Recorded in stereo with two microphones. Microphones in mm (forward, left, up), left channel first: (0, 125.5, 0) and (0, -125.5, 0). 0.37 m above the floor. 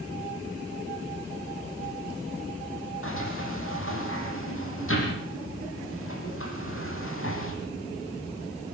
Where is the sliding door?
50° left (ahead or behind), 5.5 m.